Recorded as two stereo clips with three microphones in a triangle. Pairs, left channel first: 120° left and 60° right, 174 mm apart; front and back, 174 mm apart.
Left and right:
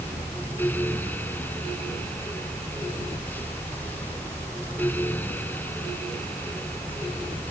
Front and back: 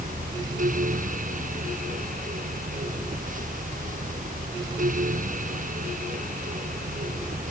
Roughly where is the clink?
I don't hear a clink.